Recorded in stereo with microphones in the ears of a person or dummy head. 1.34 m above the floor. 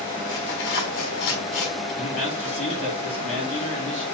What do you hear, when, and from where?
0.3 s tearing paper: 55° left (ahead or behind), 1.5 m
2.0 s a man speaking: 40° left (ahead or behind), 2.5 m